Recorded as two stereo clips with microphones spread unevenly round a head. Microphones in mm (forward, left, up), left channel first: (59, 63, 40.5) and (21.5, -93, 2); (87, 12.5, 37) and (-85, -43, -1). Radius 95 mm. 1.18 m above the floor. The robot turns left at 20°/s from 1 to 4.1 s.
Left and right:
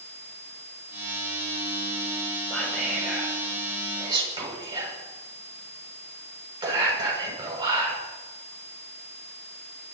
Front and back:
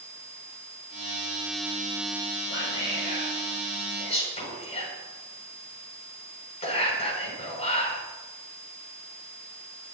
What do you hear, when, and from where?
2.5 s whispering: 10° right, 7 m; by 8.0 s 40° right, 7 m